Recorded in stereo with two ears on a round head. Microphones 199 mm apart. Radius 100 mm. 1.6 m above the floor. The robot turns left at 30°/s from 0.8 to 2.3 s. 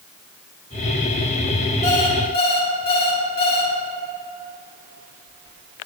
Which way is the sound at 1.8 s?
30° left (ahead or behind).